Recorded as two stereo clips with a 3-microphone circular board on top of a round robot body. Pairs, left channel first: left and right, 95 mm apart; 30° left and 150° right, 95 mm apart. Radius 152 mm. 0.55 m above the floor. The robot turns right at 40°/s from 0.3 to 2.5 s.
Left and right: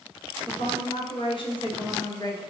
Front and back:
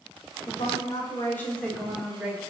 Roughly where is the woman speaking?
Ahead left.